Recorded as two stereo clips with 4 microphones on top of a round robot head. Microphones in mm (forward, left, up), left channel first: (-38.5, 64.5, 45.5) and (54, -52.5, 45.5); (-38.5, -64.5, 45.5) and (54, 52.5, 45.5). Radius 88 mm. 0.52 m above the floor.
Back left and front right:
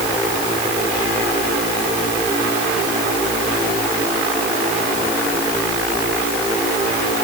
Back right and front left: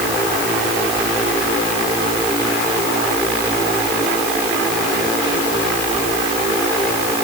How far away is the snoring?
I don't hear snoring.